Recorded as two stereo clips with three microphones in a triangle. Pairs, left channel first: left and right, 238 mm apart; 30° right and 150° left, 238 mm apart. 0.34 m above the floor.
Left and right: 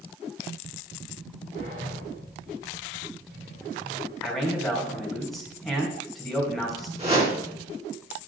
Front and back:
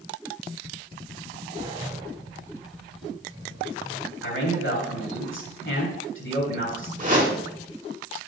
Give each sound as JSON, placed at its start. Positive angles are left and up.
{"t": 1.6, "sound": "a sliding door", "azimuth_deg": -140, "distance_m": 4.5}
{"t": 4.2, "sound": "a man speaking", "azimuth_deg": 0, "distance_m": 3.0}
{"t": 7.0, "sound": "a whoosh", "azimuth_deg": -155, "distance_m": 3.0}